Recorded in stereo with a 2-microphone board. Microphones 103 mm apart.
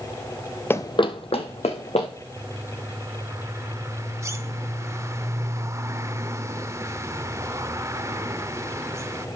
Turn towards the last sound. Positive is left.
turn(degrees=-30)  # may be behind; listen again after turning